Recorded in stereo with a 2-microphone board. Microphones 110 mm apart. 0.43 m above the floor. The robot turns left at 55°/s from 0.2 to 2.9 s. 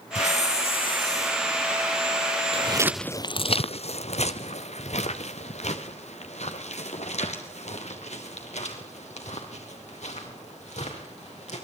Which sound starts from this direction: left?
A hiss, at 0.1 s.